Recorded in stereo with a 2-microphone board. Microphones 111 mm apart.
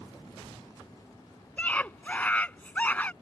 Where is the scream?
15° left (ahead or behind).